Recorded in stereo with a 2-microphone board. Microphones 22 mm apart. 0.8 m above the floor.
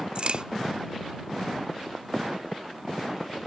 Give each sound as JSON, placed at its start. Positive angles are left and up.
{"t": 0.1, "sound": "a crack", "side_deg": -50}